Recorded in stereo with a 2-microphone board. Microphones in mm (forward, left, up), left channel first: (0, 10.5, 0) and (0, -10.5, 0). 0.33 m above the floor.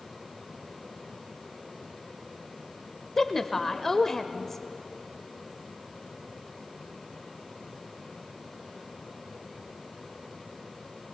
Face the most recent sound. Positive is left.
turn(degrees=15)  # may be behind; listen again after turning